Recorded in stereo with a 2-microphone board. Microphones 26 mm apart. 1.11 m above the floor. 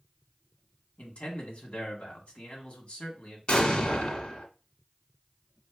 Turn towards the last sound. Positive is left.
turn(degrees=40)  # may be behind; listen again after turning